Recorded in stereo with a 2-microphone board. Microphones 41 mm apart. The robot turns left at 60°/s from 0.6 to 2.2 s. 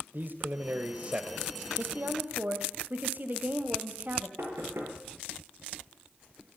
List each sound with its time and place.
0.1 s a man speaking: 110° right, 1.6 m; by 1.5 s 165° right, 1.6 m
1.8 s a woman speaking: 60° right (ahead or behind), 2 m; by 4.3 s 45° right (ahead or behind), 2 m
4.4 s knocking: 80° right, 7 m